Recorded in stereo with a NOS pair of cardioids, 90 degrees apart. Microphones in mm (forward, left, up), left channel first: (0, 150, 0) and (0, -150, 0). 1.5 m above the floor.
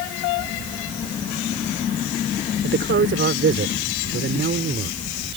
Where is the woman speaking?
40° right.